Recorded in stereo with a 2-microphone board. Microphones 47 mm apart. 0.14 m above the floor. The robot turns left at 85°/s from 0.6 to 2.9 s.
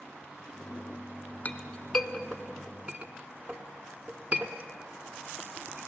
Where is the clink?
30° left (ahead or behind), 1.2 m; by 5.9 s 30° right (ahead or behind), 1.2 m.